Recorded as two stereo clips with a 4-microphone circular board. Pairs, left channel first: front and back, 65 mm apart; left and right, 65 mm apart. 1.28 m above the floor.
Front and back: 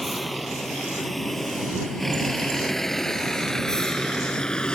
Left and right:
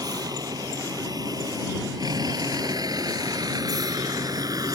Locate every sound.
0.0 s a vehicle: 90° right; by 4.8 s 75° right